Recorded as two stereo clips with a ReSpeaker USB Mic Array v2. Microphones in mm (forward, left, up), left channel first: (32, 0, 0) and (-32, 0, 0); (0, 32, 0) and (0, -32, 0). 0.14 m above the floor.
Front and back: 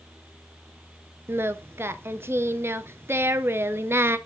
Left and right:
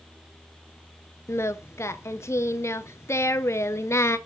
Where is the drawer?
No drawer in this recording.